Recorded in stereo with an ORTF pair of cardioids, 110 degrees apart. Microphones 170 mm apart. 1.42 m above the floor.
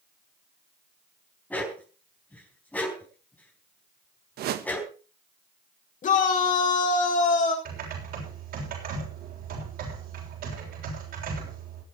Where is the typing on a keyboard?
65° right, 7 m.